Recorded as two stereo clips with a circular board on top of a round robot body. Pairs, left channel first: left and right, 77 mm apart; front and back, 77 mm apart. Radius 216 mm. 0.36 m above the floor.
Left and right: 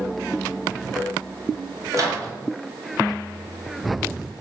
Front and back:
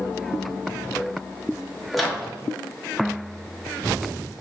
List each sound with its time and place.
1.9 s a microwave: 90° right, 1.0 m